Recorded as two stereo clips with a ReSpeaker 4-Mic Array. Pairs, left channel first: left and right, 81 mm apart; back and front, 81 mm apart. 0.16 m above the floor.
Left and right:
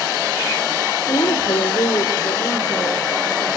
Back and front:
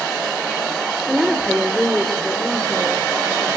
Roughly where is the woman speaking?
Left.